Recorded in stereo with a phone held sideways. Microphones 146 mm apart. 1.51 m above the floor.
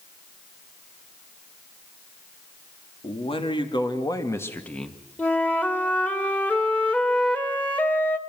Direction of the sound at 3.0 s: 40° left (ahead or behind).